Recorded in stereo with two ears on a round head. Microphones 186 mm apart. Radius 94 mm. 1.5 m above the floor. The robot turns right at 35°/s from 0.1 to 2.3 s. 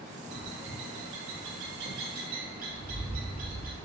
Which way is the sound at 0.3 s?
55° right (ahead or behind).